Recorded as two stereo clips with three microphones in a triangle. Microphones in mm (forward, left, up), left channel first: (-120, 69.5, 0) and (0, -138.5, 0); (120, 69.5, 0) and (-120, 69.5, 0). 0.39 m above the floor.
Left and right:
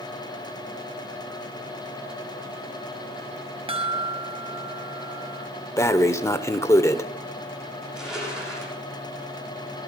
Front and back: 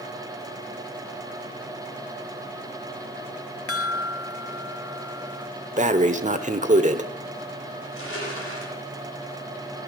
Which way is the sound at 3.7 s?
5° left.